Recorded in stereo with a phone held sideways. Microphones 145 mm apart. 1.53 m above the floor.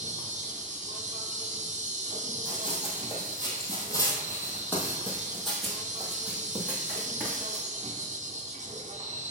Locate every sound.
0.0 s an insect: 55° right (ahead or behind), 1.0 m
2.5 s running footsteps: 40° left (ahead or behind), 2 m; by 7.7 s 15° right (ahead or behind), 2.5 m